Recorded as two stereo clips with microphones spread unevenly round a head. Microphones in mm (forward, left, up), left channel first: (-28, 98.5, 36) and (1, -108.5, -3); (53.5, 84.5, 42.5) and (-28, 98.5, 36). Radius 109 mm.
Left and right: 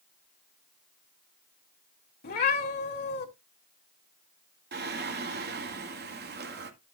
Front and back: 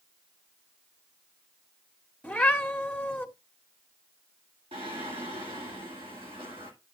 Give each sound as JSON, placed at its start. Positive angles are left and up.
{"t": 2.2, "sound": "a cat meowing", "azimuth_deg": 60, "distance_m": 2.5}
{"t": 4.7, "sound": "singing", "azimuth_deg": -130, "distance_m": 1.8}